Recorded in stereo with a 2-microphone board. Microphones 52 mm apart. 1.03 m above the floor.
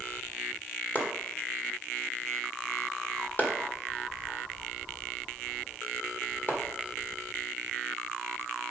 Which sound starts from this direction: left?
Chopping, at 0.9 s.